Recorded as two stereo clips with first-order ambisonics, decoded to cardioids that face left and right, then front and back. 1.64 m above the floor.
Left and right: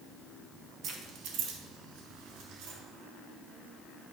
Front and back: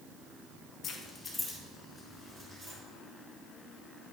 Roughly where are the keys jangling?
Ahead right.